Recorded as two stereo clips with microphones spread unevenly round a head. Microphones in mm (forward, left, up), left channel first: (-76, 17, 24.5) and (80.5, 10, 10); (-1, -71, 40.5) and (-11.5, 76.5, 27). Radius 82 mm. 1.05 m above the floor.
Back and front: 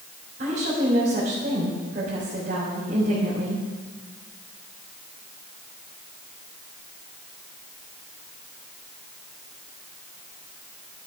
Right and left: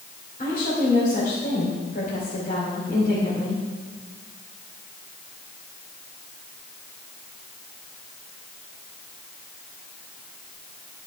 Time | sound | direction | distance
0.4 | a woman speaking | 45° right | 3.5 m